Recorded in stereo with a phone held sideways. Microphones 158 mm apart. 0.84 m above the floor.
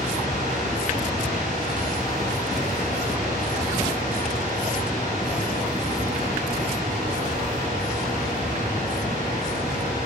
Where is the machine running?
55° right (ahead or behind), 1.8 m.